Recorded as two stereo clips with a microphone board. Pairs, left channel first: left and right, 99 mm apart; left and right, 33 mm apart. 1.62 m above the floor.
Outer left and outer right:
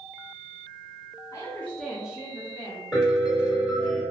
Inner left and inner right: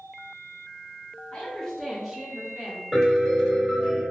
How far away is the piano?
About 1.6 m.